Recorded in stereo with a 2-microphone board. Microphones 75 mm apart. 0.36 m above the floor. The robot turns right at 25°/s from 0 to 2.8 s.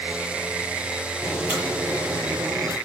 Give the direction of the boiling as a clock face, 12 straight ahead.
5 o'clock.